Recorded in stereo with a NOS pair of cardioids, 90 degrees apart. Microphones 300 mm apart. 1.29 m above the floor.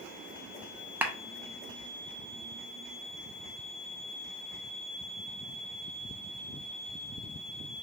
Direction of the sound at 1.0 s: 5° right.